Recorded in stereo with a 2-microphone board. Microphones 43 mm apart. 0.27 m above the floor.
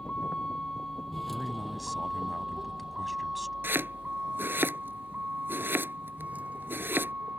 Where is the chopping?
55° right (ahead or behind).